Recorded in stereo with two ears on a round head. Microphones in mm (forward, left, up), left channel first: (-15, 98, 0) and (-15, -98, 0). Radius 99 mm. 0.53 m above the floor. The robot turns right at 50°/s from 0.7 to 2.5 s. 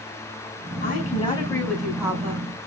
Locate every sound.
0.8 s a woman speaking: 130° left, 3.5 m; by 2.5 s 145° right, 3.5 m